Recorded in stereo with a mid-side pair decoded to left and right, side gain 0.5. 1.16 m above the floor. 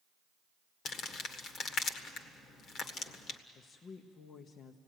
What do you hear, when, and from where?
0.8 s crumpling: 60° left, 1.6 m
3.5 s a woman speaking: 50° left, 1.2 m